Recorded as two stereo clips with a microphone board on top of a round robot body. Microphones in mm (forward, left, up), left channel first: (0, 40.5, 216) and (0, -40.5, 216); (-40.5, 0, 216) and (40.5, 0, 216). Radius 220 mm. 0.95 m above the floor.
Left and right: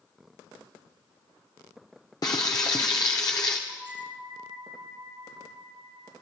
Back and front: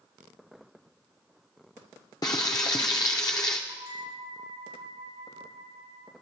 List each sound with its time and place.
2.2 s frying: 135° left, 0.9 m
3.7 s a bell: 15° right, 6.5 m